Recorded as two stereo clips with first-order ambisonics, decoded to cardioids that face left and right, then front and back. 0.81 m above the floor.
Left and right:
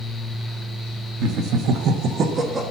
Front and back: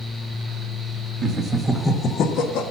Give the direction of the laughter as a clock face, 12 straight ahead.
4 o'clock.